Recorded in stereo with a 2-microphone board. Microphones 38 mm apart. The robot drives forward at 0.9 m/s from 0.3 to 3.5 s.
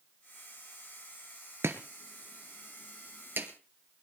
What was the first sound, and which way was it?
Chopping, 80° right.